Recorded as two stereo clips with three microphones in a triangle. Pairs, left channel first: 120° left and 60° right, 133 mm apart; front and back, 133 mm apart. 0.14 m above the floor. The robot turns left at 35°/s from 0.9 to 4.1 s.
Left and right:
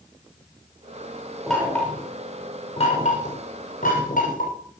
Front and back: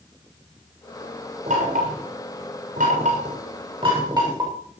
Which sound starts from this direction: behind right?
Knocking, at 1.5 s.